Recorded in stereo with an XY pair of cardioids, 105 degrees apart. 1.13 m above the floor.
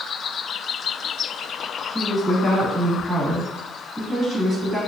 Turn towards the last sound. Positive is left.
turn(degrees=-10)